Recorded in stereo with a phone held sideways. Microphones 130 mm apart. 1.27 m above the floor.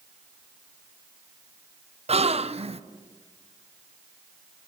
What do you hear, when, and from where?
2.1 s a gasp: 55° right (ahead or behind), 0.6 m